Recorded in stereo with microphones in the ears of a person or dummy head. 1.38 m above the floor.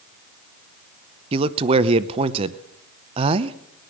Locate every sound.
1.3 s a man speaking: 35° right (ahead or behind), 0.7 m